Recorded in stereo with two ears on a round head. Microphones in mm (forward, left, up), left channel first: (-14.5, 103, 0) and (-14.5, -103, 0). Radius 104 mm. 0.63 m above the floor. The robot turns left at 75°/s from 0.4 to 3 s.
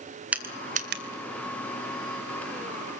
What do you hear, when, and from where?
0.3 s crushing: 5° right (ahead or behind), 2.5 m; by 1.0 s 50° right (ahead or behind), 2.5 m